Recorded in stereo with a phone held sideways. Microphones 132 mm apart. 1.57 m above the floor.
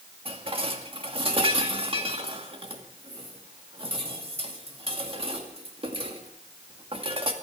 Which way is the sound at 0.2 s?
45° right (ahead or behind).